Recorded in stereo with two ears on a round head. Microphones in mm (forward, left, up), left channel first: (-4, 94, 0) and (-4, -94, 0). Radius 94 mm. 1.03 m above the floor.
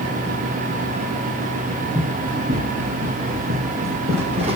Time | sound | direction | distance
1.9 | running footsteps | 30° right (ahead or behind) | 4.5 m